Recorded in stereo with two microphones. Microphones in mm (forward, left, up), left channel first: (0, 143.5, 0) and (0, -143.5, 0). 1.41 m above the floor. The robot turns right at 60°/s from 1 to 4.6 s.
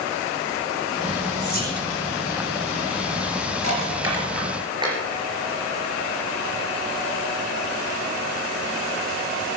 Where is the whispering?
40° left (ahead or behind), 5.5 m; by 1.8 s 20° left (ahead or behind), 5.5 m.